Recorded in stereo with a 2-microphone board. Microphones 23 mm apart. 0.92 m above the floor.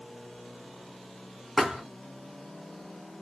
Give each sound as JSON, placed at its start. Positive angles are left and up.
{"t": 1.6, "sound": "a thud", "side_deg": -5, "distance_m": 2.0}